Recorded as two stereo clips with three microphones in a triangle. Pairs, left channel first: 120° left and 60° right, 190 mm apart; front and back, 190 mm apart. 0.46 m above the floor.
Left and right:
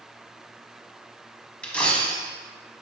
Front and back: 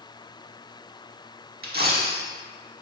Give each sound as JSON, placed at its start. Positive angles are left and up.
{"t": 1.6, "sound": "a dropped coin", "azimuth_deg": -155, "distance_m": 0.6}